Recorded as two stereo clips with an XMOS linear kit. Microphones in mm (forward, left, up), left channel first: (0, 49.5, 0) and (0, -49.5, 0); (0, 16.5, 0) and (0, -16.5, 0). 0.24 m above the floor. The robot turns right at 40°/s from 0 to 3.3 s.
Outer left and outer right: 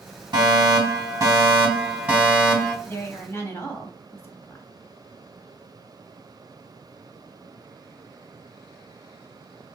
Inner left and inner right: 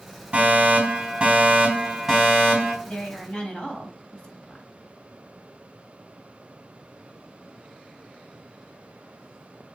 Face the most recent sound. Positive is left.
turn(degrees=25)  # may be behind; listen again after turning